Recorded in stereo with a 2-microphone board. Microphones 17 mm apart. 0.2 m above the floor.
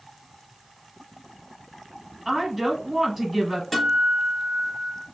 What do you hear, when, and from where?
2.2 s a woman speaking: 10° right (ahead or behind), 1.4 m
3.7 s a guitar: 10° left (ahead or behind), 1.0 m